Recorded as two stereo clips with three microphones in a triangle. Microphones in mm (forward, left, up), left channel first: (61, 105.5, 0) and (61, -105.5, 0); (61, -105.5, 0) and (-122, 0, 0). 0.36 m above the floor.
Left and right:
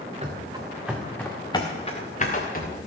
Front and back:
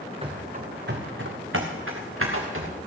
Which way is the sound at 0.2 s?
145° right.